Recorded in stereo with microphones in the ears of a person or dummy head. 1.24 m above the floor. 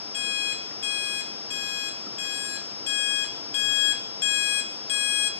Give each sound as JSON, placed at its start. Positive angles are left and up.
{"t": 0.1, "sound": "an alarm clock", "side_deg": 45, "distance_m": 0.9}